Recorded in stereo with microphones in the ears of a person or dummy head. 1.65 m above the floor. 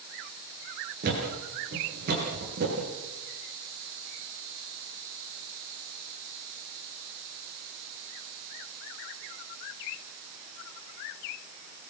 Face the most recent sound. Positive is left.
turn(degrees=-55)  # may be behind; listen again after turning